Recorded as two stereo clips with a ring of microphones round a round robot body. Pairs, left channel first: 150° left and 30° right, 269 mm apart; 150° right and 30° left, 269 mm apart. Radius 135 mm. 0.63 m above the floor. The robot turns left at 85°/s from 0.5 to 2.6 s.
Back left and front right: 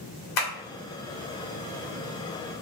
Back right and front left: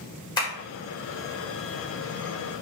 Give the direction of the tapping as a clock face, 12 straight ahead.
7 o'clock.